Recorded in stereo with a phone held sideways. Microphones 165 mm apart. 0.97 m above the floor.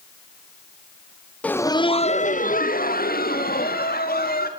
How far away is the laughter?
About 0.8 m.